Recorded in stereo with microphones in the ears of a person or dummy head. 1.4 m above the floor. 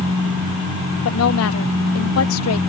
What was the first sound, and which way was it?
A woman speaking, 85° left.